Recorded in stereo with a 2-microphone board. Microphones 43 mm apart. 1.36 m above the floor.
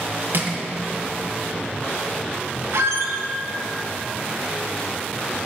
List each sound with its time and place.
0.3 s crushing: 60° right (ahead or behind), 0.8 m
2.7 s a squeak: 75° right (ahead or behind), 0.7 m